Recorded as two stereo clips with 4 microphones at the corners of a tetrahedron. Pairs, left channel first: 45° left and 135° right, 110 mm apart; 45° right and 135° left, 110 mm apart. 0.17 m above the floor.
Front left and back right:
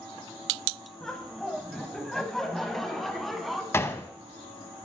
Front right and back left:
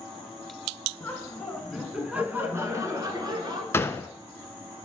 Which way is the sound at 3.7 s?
5° right.